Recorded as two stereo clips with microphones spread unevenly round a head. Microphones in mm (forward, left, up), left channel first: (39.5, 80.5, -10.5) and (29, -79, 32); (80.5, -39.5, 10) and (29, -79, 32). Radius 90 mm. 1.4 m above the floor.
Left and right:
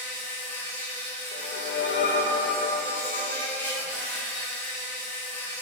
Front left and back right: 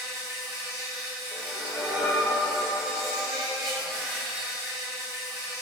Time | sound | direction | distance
0.0 | an insect | 175° left | 1.1 m
1.3 | a whoosh | 125° left | 1.0 m